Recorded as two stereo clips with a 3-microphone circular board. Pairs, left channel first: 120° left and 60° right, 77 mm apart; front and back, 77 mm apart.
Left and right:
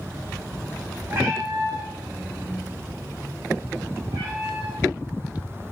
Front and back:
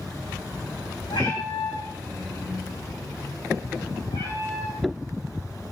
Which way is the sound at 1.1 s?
10° right.